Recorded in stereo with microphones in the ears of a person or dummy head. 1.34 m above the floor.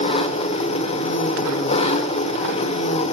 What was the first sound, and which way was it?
An engine running, 35° left (ahead or behind).